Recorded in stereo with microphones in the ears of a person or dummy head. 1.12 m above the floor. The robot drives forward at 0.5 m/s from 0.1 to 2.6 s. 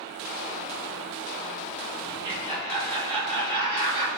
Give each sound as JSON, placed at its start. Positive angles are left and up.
{"t": 2.1, "sound": "laughter", "side_deg": -25, "distance_m": 4.0}